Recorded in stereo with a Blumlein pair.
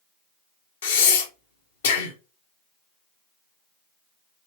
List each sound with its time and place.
0.8 s breathing: 60° left, 1.0 m